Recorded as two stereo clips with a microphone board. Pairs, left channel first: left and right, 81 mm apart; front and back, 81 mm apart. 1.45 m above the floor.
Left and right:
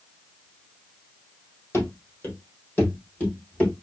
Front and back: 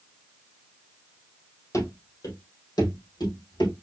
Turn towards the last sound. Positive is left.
turn(degrees=15)